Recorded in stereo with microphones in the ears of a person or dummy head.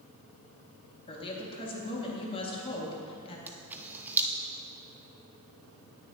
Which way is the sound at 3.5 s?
10° right (ahead or behind).